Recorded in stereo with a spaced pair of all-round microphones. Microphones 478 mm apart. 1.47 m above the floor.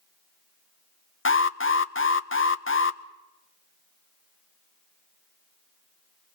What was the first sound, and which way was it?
An alarm, 25° left (ahead or behind).